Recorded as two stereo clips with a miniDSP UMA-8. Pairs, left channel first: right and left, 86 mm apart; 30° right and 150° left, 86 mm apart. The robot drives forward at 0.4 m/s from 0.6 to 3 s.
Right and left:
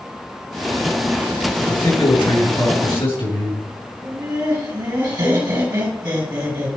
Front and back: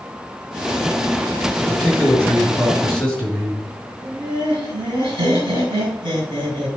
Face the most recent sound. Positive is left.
turn(degrees=125)